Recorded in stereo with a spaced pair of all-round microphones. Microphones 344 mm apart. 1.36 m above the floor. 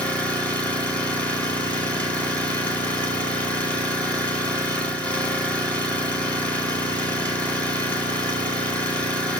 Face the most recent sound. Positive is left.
turn(degrees=5)  # may be behind; listen again after turning